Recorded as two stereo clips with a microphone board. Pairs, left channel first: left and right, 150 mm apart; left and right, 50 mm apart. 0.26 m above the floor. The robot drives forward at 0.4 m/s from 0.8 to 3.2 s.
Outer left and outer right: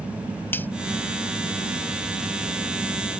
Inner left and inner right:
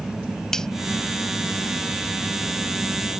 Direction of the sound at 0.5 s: 15° left (ahead or behind).